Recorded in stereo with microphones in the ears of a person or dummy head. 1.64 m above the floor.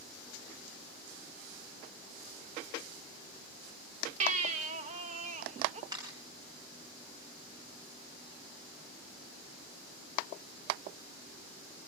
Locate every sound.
4.2 s a baby crying: 40° right (ahead or behind), 2.0 m
5.9 s a camera shutter: 20° right (ahead or behind), 6.5 m